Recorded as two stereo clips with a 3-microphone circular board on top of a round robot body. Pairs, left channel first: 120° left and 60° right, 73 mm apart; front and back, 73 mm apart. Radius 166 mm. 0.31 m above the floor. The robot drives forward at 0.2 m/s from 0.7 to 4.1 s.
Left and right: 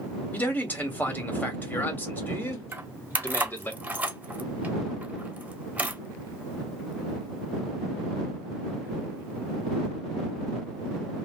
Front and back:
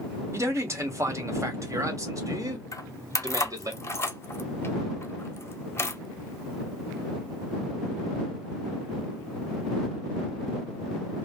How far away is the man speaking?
About 1.7 m.